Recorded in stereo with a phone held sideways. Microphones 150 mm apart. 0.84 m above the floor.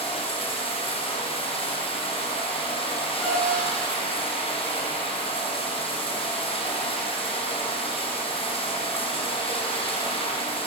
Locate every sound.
0.0 s running water: 35° left (ahead or behind), 6 m
3.2 s a piano: centre (ahead or behind), 7.5 m